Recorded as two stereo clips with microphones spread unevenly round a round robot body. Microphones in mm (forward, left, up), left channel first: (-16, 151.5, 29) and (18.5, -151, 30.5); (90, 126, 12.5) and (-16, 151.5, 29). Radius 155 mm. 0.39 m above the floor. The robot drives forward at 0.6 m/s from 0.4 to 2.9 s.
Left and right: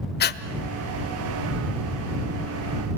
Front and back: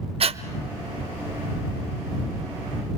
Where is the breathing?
145° left, 1.1 m.